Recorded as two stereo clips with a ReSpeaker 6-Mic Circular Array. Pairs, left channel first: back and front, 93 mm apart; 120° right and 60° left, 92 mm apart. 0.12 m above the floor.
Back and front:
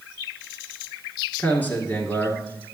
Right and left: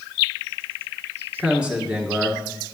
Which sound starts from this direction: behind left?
A man speaking, at 1.4 s.